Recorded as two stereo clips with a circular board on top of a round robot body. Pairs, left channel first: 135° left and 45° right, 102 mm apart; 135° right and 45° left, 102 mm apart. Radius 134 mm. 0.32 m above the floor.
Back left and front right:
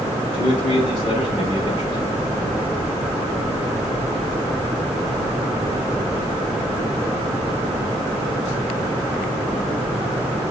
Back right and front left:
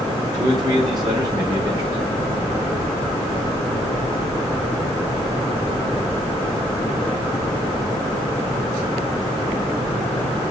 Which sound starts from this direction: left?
A man speaking, at 0.3 s.